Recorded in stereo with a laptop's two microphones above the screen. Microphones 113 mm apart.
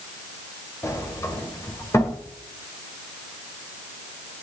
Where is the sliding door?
25° left (ahead or behind), 1.7 m.